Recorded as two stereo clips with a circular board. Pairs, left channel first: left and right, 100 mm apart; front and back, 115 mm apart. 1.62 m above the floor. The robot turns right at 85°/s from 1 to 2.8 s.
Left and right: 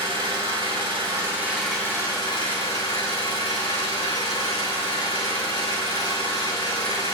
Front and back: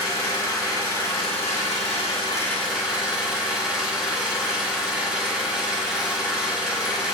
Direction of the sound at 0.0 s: 55° right.